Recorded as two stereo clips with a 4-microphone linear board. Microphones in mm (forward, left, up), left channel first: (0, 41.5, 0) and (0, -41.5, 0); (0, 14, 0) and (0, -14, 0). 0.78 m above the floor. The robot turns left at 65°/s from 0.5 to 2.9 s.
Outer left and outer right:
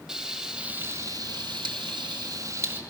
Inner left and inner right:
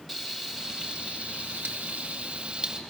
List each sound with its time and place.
0.1 s frying: 10° right, 1.7 m; by 2.8 s 155° right, 1.7 m